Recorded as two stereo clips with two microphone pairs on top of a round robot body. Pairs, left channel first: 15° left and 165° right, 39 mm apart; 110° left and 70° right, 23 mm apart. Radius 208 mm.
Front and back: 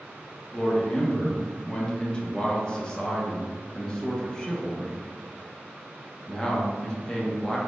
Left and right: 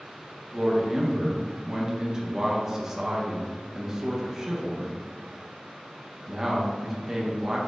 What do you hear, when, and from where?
0.5 s a man speaking: 50° right, 1.0 m